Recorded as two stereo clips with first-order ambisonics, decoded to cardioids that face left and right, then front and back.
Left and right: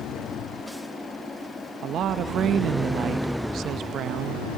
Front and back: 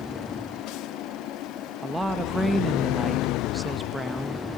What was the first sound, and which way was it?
A woman speaking, 100° right.